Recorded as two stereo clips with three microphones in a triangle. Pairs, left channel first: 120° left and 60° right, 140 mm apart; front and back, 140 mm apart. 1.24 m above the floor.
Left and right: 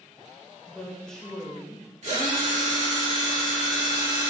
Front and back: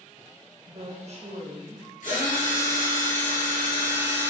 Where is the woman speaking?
155° right, 0.8 m.